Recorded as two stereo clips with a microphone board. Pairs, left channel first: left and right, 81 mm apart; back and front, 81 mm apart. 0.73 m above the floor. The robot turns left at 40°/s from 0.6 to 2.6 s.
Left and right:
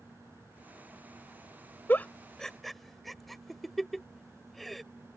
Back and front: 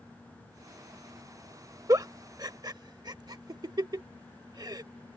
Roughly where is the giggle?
Ahead left.